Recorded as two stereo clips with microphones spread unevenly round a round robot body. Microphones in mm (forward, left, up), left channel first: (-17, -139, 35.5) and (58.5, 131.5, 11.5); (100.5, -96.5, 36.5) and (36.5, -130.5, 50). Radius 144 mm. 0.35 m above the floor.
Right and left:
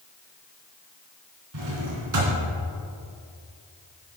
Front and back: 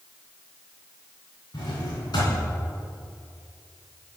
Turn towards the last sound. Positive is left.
turn(degrees=60)